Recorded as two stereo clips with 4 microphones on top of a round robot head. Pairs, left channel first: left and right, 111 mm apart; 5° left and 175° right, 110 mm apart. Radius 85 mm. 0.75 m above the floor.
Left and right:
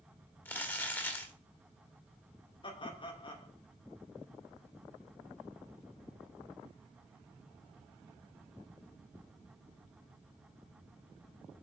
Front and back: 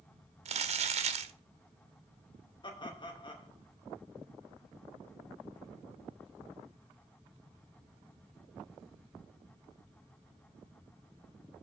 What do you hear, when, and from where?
0.5 s crumpling: 165° left, 1.2 m
2.6 s laughter: 50° left, 2.5 m